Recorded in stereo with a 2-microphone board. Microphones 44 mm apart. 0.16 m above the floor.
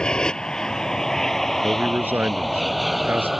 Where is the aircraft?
20° left (ahead or behind); by 3.4 s 5° right (ahead or behind).